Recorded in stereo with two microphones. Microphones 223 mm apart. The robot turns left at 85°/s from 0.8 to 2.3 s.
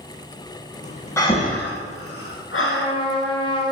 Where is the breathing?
15° left (ahead or behind), 0.6 m; by 2.9 s 65° left (ahead or behind), 0.6 m.